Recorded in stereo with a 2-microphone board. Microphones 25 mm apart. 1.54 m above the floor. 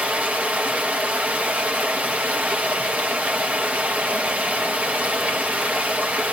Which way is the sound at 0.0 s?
70° right (ahead or behind).